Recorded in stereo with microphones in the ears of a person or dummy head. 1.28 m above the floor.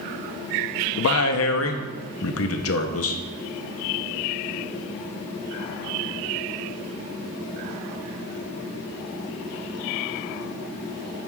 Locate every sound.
1.0 s a man speaking: 70° left (ahead or behind), 1.1 m